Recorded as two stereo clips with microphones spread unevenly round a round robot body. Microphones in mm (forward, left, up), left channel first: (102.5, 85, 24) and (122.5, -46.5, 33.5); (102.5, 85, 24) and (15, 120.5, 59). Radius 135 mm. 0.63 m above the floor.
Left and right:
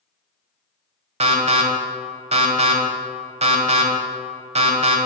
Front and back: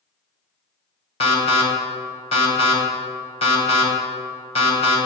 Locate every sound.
1.2 s an alarm: 40° right, 2 m